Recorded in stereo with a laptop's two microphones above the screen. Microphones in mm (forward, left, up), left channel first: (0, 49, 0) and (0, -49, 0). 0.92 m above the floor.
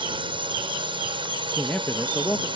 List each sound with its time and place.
0.0 s a drone: 65° right (ahead or behind)
1.5 s a man speaking: 20° left (ahead or behind)